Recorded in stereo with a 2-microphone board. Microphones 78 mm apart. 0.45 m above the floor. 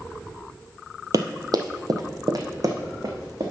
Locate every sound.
1.1 s running footsteps: 55° right (ahead or behind), 0.7 m